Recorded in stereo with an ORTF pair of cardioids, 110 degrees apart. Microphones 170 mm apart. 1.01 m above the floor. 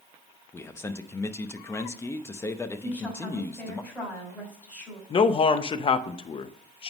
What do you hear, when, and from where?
0.5 s a man speaking: 15° left, 0.8 m
2.8 s a woman speaking: 10° left, 5.5 m
5.1 s a man speaking: 35° left, 0.8 m